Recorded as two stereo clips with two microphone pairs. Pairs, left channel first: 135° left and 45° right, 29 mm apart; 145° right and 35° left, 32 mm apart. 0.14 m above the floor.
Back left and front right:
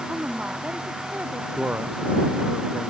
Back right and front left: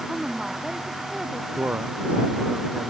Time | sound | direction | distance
0.1 | a woman speaking | 35° right | ?
1.6 | a man speaking | 5° right | ?